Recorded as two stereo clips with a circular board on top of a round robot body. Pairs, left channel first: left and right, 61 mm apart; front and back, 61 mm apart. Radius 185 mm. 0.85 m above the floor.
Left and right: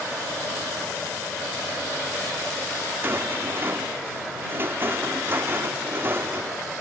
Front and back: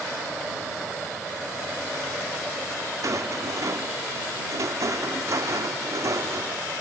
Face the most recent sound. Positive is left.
turn(degrees=-145)